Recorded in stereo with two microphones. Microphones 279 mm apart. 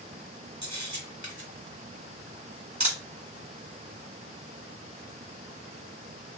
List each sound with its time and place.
0.6 s a camera shutter: 75° right (ahead or behind), 1.3 m